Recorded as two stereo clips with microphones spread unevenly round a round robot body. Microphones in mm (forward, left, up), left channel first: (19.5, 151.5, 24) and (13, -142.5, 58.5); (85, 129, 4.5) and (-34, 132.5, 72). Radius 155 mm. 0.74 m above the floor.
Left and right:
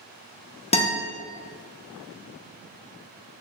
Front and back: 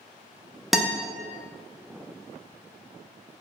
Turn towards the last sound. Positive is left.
turn(degrees=45)